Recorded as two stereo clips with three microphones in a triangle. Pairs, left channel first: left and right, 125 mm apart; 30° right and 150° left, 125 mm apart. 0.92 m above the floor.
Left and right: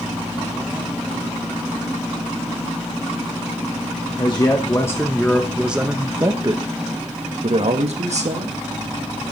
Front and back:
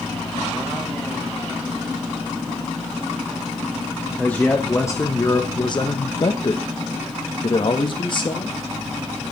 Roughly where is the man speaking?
Ahead left.